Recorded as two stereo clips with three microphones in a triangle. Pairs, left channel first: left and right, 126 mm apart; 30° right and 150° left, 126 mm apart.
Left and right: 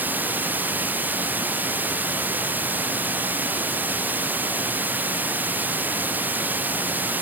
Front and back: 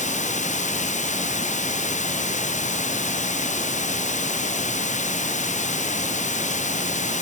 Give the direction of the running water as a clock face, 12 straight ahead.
12 o'clock.